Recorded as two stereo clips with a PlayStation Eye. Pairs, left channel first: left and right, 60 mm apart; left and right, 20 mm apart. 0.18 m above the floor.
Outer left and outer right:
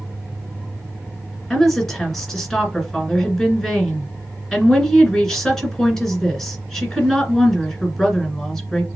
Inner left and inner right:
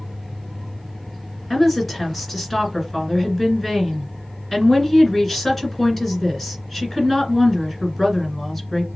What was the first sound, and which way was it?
A woman speaking, 5° left (ahead or behind).